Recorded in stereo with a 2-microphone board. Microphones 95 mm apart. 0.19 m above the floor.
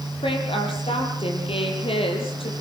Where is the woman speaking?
70° left (ahead or behind), 6.5 m; by 2.5 s 75° left (ahead or behind), 6 m.